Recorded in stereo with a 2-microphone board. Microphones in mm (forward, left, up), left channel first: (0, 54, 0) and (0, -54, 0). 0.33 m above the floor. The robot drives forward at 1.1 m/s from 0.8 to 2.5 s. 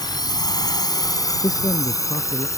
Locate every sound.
0.0 s a drone: 40° left (ahead or behind); by 2.6 s 30° left (ahead or behind)
1.4 s a man speaking: 35° left (ahead or behind); by 2.5 s 45° left (ahead or behind)